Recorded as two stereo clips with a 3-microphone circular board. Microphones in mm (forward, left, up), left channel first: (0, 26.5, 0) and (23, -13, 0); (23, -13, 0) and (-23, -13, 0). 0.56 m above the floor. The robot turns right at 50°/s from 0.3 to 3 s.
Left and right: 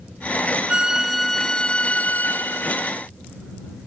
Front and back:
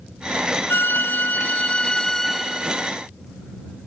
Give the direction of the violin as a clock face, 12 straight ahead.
12 o'clock.